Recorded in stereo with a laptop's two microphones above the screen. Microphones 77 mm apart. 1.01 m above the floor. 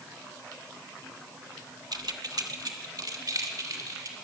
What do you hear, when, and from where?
1.9 s keys jangling: 60° right (ahead or behind), 0.9 m; by 4.1 s 50° right (ahead or behind), 2.5 m